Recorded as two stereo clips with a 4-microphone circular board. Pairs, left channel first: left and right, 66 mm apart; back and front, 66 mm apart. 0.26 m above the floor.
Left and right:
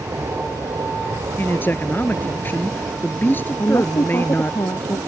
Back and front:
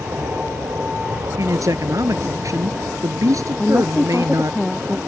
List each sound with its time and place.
0.0 s an aircraft: 55° right; by 5.1 s 65° right
1.4 s a man speaking: 35° left
3.6 s a woman speaking: 95° left